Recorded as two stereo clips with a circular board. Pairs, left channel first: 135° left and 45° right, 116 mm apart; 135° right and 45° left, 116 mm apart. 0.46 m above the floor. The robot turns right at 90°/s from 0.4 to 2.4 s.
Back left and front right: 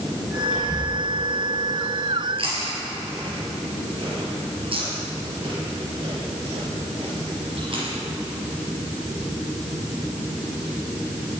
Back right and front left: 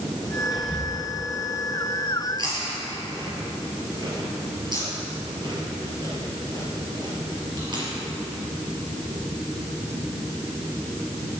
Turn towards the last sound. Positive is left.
turn(degrees=-5)